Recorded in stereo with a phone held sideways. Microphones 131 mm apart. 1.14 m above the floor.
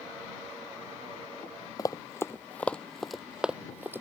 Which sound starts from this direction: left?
Running footsteps, at 1.8 s.